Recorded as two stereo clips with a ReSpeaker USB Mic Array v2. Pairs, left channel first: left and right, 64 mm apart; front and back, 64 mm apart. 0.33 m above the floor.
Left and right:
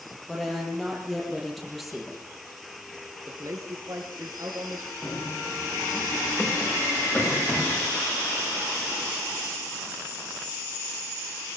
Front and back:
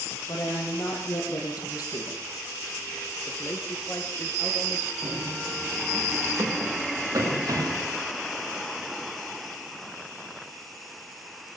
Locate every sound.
0.3 s a woman speaking: 5° left, 9 m; by 2.2 s straight ahead, 8.5 m
3.3 s a man speaking: 55° right, 4.5 m
5.0 s running footsteps: 155° left, 8.5 m